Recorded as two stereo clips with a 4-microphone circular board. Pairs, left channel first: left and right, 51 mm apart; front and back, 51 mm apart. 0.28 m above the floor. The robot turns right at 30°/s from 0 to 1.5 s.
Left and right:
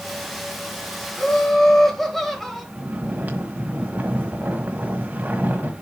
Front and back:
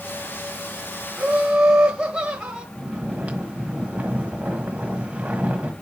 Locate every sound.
1.2 s laughter: 150° left, 1.5 m; by 2.6 s 160° left, 1.5 m
2.8 s snoring: 125° right, 1.4 m